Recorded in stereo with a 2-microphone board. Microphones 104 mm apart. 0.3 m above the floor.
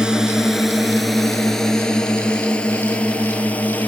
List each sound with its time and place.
0.0 s a drone: 10° right (ahead or behind); by 3.9 s 15° left (ahead or behind)